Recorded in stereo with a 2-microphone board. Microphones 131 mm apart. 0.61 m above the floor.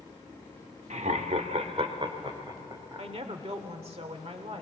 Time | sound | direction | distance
0.9 | laughter | 60° right (ahead or behind) | 1.3 m
3.0 | a woman speaking | 50° right (ahead or behind) | 1.8 m